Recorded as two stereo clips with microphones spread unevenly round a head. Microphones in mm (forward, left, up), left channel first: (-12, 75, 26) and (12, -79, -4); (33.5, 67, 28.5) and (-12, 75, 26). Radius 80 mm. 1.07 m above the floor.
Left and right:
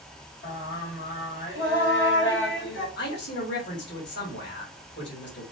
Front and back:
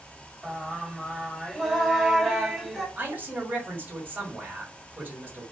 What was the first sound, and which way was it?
Singing, 85° left.